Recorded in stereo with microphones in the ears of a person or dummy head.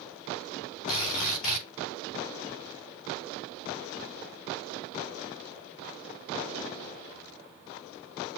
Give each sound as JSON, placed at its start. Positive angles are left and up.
{"t": 0.9, "sound": "a drill", "side_deg": 45, "distance_m": 4.5}